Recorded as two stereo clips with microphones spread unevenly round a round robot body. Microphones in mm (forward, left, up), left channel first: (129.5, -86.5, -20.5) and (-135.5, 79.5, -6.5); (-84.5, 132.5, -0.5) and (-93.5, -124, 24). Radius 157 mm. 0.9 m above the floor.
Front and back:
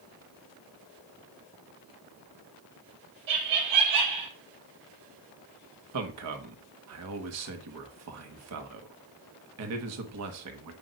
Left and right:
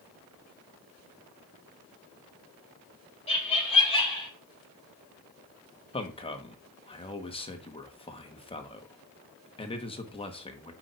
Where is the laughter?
155° left, 4.5 m; by 4.3 s 160° left, 5.5 m.